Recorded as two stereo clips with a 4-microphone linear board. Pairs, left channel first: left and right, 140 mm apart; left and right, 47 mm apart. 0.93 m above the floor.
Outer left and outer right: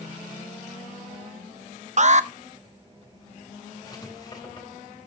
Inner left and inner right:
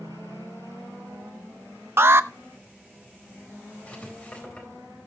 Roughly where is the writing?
Left.